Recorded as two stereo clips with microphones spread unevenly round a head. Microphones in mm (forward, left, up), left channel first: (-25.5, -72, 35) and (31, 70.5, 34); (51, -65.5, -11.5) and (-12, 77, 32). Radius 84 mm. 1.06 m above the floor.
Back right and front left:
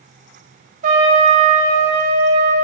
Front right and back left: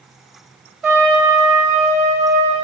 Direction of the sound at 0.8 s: 30° left.